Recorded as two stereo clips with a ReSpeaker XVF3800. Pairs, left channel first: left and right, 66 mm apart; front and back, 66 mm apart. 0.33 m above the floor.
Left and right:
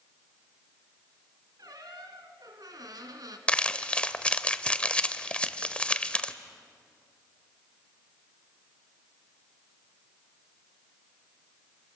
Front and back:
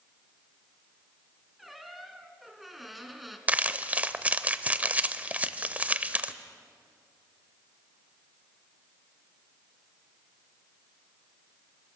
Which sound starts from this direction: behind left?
Crumpling, at 3.5 s.